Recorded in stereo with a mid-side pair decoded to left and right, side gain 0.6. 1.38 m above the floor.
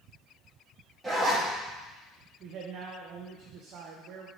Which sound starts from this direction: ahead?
A zipper, at 1.0 s.